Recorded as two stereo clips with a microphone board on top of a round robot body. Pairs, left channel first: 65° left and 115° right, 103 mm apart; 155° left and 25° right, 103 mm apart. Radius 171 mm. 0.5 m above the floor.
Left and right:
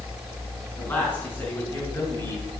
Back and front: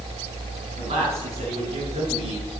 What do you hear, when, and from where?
0.8 s a man speaking: 5° right, 6 m; by 2.5 s straight ahead, 7.5 m